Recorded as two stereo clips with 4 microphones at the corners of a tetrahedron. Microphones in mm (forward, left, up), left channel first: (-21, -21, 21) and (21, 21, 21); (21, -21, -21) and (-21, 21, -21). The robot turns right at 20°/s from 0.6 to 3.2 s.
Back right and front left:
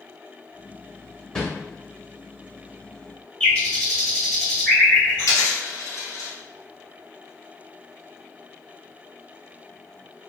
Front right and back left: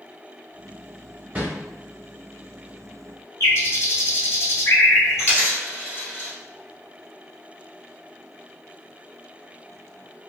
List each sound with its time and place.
1.4 s a whoosh: 165° left, 0.8 m; by 1.5 s 170° left, 0.8 m
3.4 s a bird: 70° right, 1.8 m
5.2 s a dropped coin: 100° right, 1.3 m